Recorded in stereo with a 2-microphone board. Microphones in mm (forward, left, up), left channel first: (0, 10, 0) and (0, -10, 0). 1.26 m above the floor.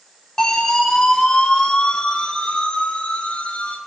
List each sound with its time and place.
0.4 s a siren: 25° left (ahead or behind), 3.5 m; by 3.8 s 80° left, 3.5 m